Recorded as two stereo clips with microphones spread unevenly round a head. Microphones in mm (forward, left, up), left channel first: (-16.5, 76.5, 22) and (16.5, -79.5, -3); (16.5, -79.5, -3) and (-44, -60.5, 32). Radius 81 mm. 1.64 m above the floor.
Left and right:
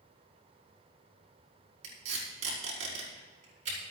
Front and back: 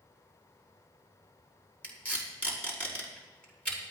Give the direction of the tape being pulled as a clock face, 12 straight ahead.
3 o'clock.